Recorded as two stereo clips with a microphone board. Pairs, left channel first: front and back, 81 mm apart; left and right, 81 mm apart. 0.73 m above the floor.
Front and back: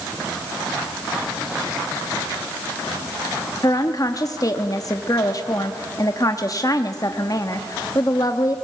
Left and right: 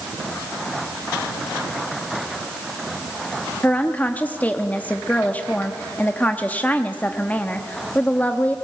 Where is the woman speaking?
25° left, 1.0 m.